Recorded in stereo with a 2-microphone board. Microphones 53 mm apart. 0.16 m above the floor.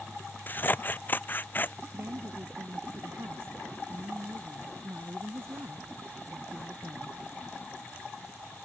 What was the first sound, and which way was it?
Scissors, 35° left (ahead or behind).